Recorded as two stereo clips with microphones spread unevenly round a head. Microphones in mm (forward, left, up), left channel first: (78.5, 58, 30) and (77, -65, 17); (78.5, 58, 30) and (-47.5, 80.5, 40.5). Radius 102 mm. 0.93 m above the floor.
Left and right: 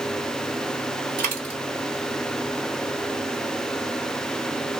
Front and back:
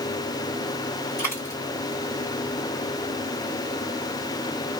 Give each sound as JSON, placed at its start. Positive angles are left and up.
{"t": 1.2, "sound": "a dropped coin", "azimuth_deg": -90, "distance_m": 1.2}